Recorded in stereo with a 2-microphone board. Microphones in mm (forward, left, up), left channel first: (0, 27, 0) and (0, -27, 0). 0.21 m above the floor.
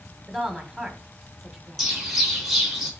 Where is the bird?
5° right (ahead or behind), 2.5 m.